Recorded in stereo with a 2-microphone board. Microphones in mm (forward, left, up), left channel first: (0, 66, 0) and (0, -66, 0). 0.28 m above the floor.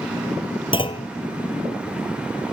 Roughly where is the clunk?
Left.